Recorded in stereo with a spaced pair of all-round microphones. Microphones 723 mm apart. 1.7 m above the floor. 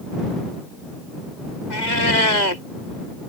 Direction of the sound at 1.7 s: 70° left (ahead or behind).